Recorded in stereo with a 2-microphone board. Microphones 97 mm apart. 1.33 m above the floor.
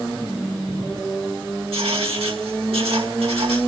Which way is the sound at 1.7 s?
80° right.